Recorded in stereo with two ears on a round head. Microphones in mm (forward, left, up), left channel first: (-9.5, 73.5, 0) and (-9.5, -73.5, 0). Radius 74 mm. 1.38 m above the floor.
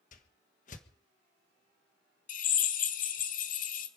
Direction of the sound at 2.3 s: 55° left (ahead or behind).